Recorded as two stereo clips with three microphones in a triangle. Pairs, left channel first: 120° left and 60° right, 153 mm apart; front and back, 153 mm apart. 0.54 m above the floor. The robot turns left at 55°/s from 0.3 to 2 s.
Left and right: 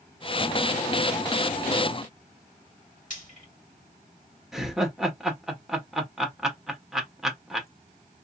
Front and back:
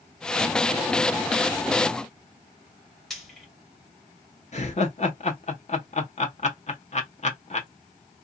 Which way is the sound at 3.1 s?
90° left.